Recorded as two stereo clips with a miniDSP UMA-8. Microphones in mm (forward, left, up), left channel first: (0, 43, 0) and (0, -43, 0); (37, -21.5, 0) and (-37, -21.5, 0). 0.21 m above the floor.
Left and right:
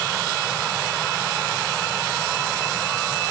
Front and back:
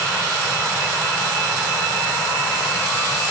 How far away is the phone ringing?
No phone ringing in this recording.